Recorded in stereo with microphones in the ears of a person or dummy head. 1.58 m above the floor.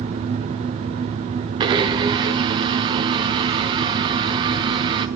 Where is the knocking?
I don't hear knocking.